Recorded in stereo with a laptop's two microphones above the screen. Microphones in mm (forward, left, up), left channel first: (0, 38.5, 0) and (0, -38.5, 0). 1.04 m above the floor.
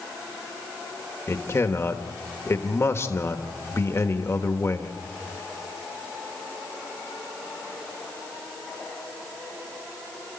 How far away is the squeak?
I don't hear a squeak.